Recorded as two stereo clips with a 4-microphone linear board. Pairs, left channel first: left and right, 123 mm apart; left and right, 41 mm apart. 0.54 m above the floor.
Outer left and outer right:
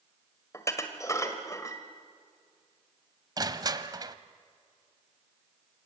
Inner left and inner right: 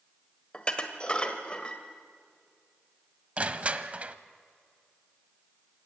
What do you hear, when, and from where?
0.5 s dishes clattering: 25° left (ahead or behind), 1.8 m
3.4 s crushing: 30° right (ahead or behind), 0.8 m